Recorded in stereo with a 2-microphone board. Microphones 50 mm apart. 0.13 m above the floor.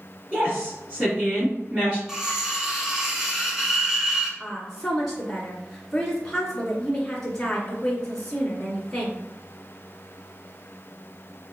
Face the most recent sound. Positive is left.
turn(degrees=10)  # may be behind; listen again after turning